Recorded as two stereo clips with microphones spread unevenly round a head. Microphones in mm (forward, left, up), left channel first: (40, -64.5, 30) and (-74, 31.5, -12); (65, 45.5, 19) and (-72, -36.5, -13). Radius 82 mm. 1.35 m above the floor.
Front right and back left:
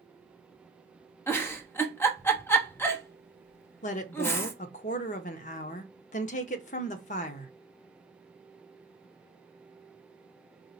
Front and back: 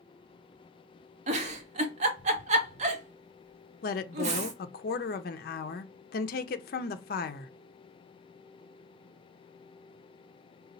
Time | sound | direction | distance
1.3 | a giggle | 120° right | 0.9 m
3.8 | a woman speaking | straight ahead | 0.5 m